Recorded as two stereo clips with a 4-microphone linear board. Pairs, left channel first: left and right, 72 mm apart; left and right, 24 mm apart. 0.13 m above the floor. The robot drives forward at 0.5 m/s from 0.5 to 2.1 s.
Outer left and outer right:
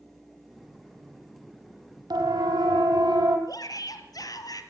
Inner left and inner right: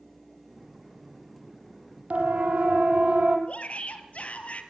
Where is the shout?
60° left (ahead or behind), 3.5 m.